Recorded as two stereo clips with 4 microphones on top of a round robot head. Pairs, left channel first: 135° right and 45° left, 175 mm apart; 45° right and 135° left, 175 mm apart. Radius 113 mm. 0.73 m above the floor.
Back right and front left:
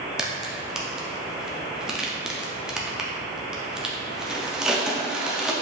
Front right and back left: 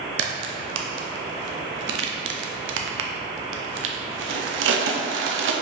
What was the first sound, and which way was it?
A crack, 130° left.